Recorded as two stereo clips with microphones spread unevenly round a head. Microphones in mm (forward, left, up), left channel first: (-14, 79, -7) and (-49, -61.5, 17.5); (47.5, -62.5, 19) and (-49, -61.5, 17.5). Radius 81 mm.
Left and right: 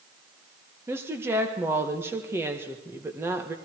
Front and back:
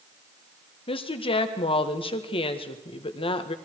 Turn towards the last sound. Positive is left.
turn(degrees=-25)